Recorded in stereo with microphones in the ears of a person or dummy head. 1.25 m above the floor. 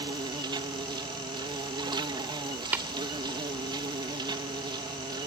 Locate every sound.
0.0 s an insect: 20° right (ahead or behind)
2.7 s tapping: 15° right (ahead or behind)